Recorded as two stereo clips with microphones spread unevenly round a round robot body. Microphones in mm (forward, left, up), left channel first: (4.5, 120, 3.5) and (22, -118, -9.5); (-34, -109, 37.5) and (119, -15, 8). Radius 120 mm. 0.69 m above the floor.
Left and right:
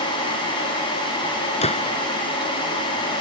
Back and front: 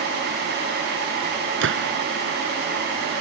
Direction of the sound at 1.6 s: 30° left.